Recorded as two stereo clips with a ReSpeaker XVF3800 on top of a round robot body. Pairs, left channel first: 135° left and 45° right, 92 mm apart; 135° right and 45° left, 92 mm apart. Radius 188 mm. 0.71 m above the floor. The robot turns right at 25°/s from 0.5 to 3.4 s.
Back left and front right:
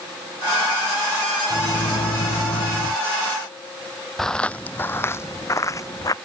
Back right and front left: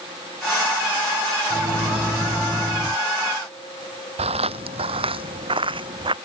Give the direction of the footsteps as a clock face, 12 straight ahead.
10 o'clock.